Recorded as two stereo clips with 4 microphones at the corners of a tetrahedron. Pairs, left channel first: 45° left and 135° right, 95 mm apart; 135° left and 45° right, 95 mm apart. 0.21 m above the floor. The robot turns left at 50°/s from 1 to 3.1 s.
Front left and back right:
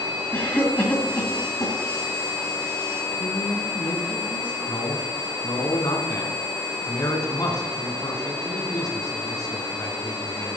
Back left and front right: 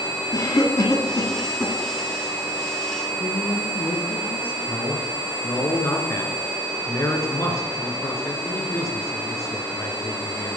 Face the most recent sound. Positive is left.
turn(degrees=80)